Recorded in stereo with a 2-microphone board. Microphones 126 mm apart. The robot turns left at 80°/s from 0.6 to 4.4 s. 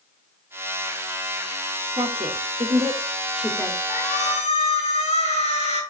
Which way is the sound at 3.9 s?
105° left.